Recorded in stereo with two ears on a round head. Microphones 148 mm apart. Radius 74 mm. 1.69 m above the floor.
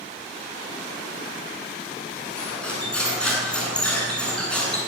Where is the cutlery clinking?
5° left (ahead or behind), 9.5 m.